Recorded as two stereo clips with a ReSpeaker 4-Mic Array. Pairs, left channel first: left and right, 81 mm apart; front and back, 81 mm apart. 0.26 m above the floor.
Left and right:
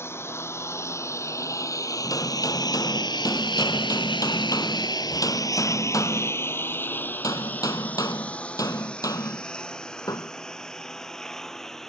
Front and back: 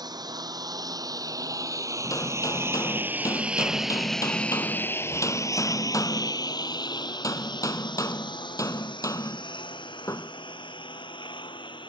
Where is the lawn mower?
150° left; by 11.9 s 5° left.